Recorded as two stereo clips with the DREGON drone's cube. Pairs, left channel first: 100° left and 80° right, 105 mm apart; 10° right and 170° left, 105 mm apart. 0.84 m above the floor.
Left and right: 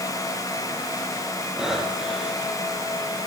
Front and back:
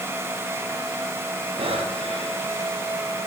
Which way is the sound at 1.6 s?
165° right.